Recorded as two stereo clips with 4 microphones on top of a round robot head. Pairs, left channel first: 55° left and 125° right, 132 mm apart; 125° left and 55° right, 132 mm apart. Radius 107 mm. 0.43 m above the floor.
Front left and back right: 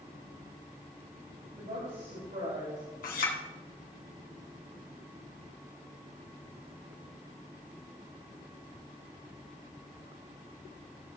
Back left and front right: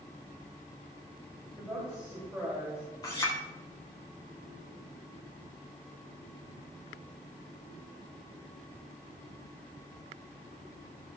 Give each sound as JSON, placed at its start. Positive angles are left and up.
{"t": 1.6, "sound": "a woman speaking", "azimuth_deg": -135, "distance_m": 3.5}
{"t": 3.0, "sound": "a clink", "azimuth_deg": 65, "distance_m": 2.5}